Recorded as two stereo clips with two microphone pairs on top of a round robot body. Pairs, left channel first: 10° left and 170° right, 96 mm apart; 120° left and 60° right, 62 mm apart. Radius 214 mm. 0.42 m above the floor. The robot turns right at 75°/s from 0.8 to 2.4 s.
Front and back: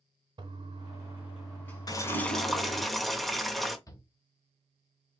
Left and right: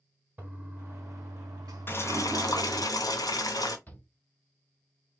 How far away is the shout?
About 1.9 m.